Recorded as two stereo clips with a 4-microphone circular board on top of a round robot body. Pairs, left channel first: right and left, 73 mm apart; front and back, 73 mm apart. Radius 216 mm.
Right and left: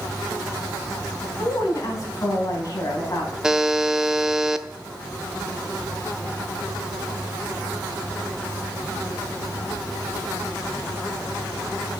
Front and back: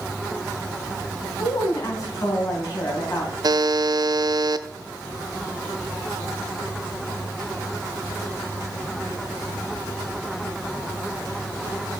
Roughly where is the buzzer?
Behind.